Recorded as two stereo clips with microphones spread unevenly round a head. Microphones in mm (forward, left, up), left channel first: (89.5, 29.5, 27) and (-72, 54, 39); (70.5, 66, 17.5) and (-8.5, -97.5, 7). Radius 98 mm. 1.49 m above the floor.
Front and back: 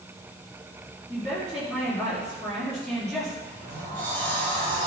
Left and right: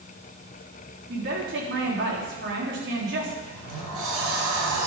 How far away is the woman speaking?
About 3.5 m.